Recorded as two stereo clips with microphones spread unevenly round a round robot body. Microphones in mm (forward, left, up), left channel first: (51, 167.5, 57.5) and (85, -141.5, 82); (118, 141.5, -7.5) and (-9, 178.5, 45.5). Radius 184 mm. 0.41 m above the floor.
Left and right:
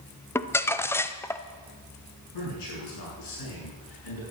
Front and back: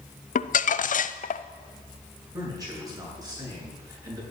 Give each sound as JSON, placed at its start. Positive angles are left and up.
{"t": 0.3, "sound": "crumpling", "azimuth_deg": 15, "distance_m": 0.6}
{"t": 2.3, "sound": "a man speaking", "azimuth_deg": 100, "distance_m": 7.0}